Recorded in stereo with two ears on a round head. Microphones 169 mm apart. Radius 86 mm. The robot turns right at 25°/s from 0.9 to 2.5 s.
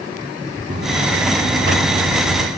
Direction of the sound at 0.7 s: 135° right.